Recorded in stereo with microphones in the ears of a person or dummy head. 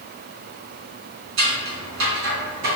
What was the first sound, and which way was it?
Scissors, 70° right (ahead or behind).